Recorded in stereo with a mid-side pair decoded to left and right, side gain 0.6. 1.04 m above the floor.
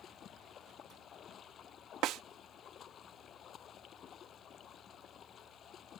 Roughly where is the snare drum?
Ahead right.